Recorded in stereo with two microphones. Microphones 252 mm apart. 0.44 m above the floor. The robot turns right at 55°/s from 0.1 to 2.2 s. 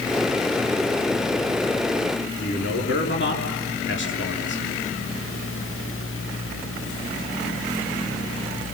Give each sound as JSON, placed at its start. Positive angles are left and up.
{"t": 2.4, "sound": "a man speaking", "side_deg": 50, "distance_m": 6.5}